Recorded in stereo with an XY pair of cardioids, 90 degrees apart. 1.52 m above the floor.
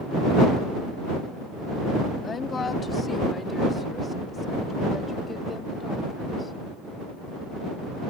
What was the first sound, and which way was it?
A woman speaking, 50° left.